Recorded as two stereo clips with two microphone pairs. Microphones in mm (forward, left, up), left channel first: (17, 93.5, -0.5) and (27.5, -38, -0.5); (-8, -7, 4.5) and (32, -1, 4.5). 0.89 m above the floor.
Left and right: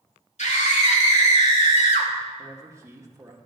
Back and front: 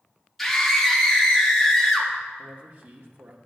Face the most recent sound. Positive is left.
turn(degrees=-20)